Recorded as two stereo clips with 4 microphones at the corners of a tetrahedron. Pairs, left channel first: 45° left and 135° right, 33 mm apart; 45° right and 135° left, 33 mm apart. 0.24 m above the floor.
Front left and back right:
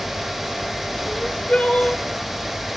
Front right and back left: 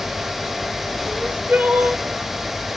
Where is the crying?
100° left, 4 m.